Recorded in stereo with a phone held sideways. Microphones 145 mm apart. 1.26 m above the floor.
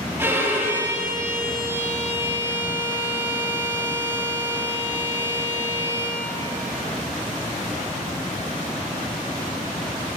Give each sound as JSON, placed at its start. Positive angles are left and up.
{"t": 0.2, "sound": "a violin", "side_deg": -15, "distance_m": 2.0}